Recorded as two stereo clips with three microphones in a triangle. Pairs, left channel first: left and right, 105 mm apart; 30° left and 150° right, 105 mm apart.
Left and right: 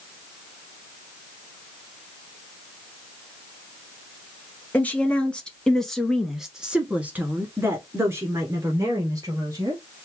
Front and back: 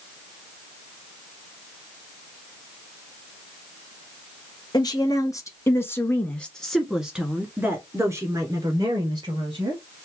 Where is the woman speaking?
20° left, 1.6 m; by 9.8 s 135° right, 2.0 m.